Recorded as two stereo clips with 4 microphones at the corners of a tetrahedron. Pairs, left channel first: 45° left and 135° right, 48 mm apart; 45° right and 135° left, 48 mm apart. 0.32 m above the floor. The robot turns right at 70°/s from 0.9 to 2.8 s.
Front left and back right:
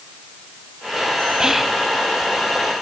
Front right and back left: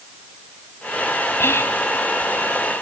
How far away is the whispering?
About 1.6 m.